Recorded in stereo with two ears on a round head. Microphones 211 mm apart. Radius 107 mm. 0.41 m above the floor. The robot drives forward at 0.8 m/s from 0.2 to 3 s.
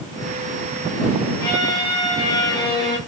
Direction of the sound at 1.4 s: 15° left (ahead or behind).